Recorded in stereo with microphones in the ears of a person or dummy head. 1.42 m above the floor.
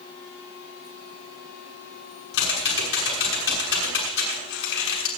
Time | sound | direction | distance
2.3 | typing on a keyboard | 80° left | 6 m